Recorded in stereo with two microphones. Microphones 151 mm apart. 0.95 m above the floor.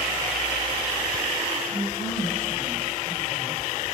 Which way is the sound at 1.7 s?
65° right (ahead or behind).